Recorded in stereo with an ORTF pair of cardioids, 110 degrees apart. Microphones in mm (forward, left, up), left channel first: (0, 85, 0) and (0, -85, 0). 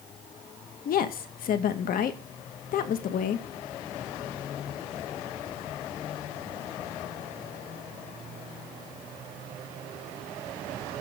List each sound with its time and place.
0.8 s a woman speaking: 60° left, 1.7 m